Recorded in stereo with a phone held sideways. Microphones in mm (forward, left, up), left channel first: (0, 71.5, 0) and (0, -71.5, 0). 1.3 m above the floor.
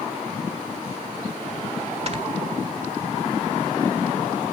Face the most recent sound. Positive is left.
turn(degrees=-50)  # may be behind; listen again after turning